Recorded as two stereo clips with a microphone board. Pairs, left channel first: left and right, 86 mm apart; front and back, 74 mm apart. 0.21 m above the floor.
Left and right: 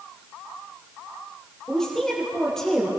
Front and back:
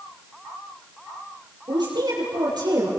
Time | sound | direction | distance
1.7 | a woman speaking | 175° left | 7 m